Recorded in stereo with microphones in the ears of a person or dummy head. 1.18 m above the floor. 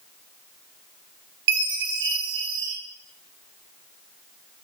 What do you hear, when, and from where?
1.5 s a chime: 55° right (ahead or behind), 1.2 m